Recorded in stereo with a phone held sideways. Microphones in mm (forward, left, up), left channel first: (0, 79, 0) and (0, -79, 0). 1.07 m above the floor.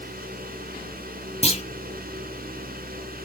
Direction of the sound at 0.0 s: 70° right (ahead or behind).